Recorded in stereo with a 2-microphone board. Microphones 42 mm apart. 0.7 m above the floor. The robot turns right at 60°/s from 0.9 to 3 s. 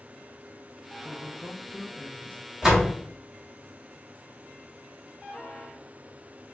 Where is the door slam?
15° right (ahead or behind), 1.1 m; by 2.9 s 5° left (ahead or behind), 1.1 m.